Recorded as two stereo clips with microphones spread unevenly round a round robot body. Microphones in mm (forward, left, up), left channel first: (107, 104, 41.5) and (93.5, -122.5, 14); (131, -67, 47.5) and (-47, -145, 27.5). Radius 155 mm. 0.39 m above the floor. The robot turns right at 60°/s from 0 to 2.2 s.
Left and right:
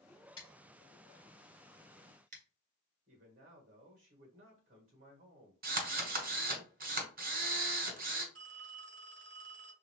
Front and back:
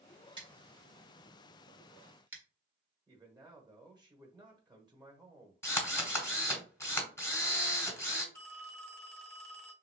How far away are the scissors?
About 1.7 m.